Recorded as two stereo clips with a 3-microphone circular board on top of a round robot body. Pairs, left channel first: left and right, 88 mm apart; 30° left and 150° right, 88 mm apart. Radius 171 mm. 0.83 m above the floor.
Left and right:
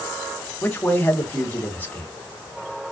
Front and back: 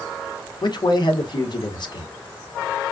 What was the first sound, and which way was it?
A man speaking, 25° left.